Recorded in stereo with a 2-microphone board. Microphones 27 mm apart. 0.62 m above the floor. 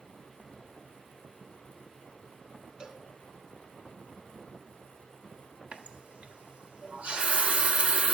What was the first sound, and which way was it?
A cowbell, 30° right (ahead or behind).